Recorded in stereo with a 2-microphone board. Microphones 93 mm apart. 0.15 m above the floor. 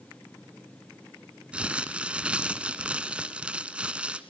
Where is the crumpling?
10° right (ahead or behind), 1.2 m.